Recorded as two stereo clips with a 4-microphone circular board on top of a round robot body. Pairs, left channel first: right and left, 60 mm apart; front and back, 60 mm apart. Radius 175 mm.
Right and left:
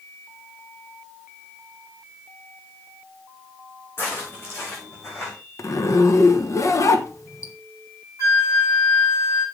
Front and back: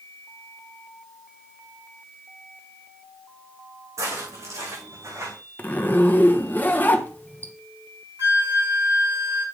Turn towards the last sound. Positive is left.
turn(degrees=-130)